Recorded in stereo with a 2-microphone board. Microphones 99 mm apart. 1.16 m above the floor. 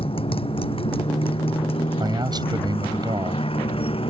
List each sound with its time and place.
0.0 s a motorcycle: 70° left (ahead or behind)
2.0 s a man speaking: 45° right (ahead or behind)